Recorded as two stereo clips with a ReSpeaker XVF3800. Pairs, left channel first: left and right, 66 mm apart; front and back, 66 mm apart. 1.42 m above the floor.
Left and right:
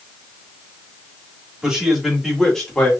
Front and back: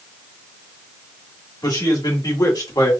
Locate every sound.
1.6 s a man speaking: 10° right, 2.5 m; by 2.9 s 15° left, 3 m